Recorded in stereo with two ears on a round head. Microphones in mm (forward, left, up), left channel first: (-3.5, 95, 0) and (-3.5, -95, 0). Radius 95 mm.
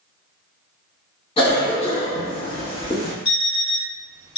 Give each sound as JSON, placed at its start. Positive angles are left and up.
{"t": 1.4, "sound": "a cough", "side_deg": 25, "distance_m": 1.6}
{"t": 3.2, "sound": "an alarm clock", "side_deg": 30, "distance_m": 1.4}